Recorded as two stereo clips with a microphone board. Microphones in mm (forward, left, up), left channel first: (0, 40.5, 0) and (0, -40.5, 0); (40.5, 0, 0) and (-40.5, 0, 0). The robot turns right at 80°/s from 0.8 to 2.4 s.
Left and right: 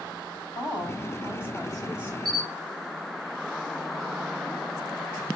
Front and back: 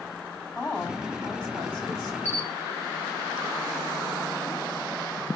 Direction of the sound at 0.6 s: 105° left.